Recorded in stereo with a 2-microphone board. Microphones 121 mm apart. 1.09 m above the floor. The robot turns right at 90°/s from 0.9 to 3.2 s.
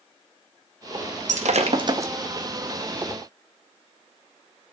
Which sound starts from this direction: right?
Breaking glass, at 1.3 s.